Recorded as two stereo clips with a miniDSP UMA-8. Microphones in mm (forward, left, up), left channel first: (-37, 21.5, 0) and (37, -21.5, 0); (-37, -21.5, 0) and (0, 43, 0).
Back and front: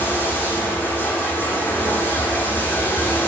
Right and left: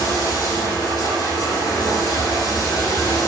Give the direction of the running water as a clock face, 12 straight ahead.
5 o'clock.